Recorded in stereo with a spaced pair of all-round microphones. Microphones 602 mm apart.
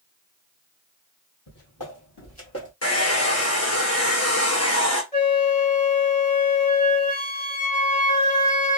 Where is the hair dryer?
25° left (ahead or behind), 0.8 m.